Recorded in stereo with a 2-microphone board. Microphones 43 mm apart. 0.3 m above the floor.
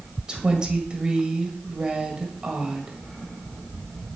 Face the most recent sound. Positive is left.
turn(degrees=-20)  # may be behind; listen again after turning